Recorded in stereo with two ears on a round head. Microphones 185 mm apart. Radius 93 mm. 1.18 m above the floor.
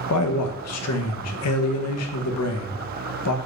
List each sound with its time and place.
0.1 s a man speaking: 85° left, 0.6 m